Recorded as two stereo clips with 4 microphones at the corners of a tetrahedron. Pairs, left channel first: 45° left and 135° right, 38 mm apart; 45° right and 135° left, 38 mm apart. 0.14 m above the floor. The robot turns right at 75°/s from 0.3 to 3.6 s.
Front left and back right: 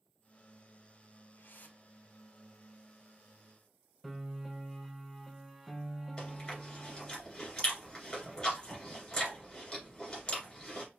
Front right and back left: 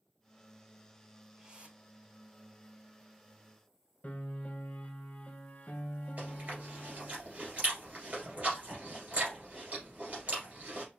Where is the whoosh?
60° left, 1.4 m; by 1.8 s 95° left, 1.4 m.